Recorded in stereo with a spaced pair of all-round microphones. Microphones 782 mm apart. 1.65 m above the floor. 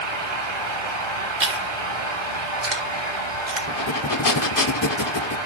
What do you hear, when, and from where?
0.0 s a fan: 35° right (ahead or behind), 4.5 m
1.4 s chewing: 65° right (ahead or behind), 1.6 m
3.7 s breathing: 25° left (ahead or behind), 0.7 m